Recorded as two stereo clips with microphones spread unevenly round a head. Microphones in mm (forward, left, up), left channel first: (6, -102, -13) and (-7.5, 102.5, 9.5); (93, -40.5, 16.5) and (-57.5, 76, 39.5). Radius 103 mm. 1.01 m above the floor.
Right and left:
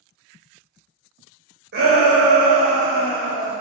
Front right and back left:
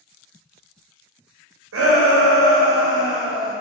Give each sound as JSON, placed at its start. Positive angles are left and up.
{"t": 1.7, "sound": "a shout", "azimuth_deg": 135, "distance_m": 0.9}